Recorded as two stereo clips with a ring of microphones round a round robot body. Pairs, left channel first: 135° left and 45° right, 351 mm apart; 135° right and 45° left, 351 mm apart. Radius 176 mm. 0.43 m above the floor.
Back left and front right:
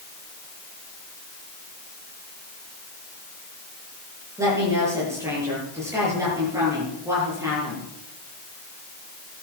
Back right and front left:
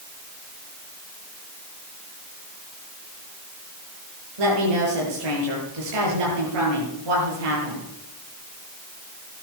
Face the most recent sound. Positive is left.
turn(degrees=35)